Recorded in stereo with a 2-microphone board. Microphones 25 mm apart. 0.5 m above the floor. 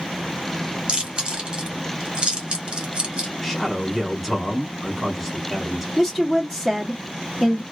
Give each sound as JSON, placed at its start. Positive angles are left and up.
{"t": 0.9, "sound": "chewing", "side_deg": -35, "distance_m": 1.4}
{"t": 3.4, "sound": "a man speaking", "side_deg": 10, "distance_m": 1.3}
{"t": 6.0, "sound": "a woman speaking", "side_deg": 10, "distance_m": 1.1}